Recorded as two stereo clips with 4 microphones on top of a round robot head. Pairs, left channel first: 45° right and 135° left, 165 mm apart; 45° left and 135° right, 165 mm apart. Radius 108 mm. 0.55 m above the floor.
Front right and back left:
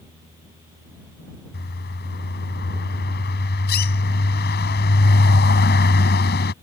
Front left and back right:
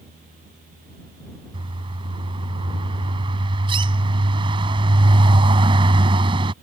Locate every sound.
1.5 s a bird: 70° right